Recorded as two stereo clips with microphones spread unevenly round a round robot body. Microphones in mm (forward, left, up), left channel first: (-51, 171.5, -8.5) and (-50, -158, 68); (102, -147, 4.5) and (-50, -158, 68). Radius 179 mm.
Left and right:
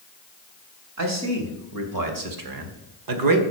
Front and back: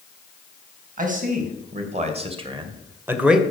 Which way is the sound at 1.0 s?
135° right.